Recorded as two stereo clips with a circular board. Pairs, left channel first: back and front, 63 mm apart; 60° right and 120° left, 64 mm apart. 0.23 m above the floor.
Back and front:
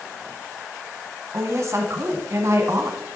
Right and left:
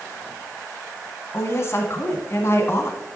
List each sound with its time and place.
1.3 s a woman speaking: 25° right, 1.5 m